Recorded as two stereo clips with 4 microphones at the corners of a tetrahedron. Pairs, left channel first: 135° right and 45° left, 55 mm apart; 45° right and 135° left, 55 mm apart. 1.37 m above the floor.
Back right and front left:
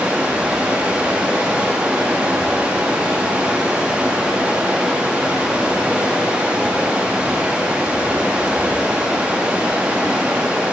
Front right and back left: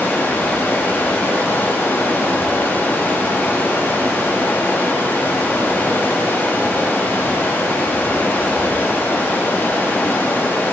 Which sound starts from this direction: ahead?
Running water, at 0.0 s.